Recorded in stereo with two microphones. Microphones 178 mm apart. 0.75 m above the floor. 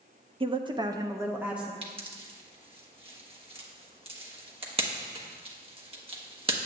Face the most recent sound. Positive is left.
turn(degrees=-30)  # may be behind; listen again after turning